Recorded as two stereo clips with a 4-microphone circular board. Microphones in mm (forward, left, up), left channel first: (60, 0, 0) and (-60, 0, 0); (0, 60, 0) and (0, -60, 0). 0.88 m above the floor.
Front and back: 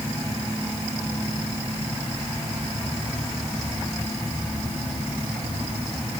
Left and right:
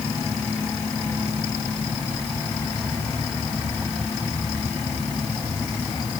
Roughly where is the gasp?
I don't hear a gasp.